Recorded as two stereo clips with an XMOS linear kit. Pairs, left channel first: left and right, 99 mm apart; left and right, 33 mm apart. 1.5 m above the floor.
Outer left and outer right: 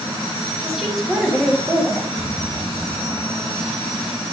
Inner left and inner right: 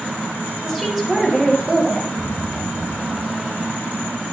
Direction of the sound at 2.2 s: 65° right (ahead or behind).